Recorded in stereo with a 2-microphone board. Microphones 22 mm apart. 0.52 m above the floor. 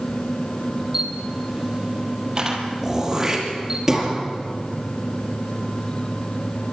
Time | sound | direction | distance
0.9 | a camera shutter | 20° right (ahead or behind) | 3.5 m
2.8 | throat clearing | 15° right (ahead or behind) | 5 m